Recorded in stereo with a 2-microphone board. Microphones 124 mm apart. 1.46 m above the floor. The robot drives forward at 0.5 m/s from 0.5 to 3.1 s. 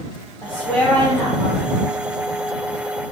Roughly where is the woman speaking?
Centre.